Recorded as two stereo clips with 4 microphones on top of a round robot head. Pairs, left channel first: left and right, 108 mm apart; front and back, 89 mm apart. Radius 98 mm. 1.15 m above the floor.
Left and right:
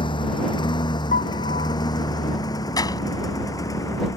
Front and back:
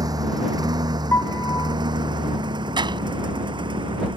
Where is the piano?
60° left.